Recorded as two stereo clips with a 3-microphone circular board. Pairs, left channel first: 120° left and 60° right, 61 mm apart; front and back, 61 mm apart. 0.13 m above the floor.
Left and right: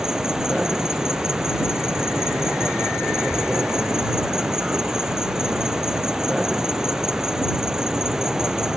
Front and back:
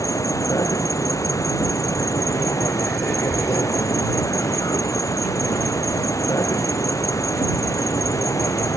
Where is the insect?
20° left.